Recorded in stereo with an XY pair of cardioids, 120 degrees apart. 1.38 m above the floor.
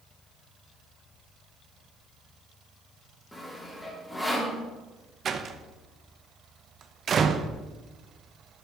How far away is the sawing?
About 3 m.